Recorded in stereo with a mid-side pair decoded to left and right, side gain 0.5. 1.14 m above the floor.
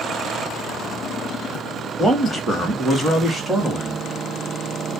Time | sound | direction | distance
2.0 | a man speaking | 10° right | 2 m